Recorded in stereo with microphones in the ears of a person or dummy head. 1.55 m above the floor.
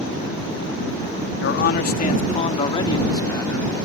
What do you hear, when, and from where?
1.4 s a man speaking: 60° left (ahead or behind); by 3.8 s 15° left (ahead or behind)